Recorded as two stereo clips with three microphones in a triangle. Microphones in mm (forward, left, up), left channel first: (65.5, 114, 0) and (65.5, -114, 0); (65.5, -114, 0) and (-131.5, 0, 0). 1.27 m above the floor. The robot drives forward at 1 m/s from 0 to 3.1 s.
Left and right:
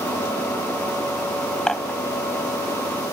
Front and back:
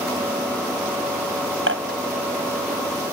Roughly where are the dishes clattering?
Behind.